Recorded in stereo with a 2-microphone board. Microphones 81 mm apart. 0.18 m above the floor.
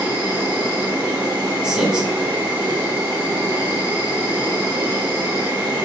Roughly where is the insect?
Right.